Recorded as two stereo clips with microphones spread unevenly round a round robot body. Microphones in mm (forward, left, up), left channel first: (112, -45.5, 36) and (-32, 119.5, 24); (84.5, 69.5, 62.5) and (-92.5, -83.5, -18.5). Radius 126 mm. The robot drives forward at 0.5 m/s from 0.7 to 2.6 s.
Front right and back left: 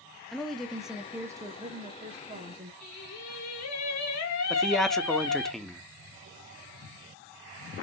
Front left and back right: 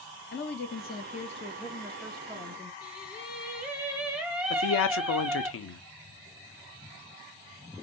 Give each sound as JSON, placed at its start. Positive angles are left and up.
{"t": 0.3, "sound": "a woman speaking", "azimuth_deg": 45, "distance_m": 0.9}
{"t": 2.8, "sound": "singing", "azimuth_deg": -60, "distance_m": 1.5}
{"t": 4.5, "sound": "a man speaking", "azimuth_deg": 45, "distance_m": 0.8}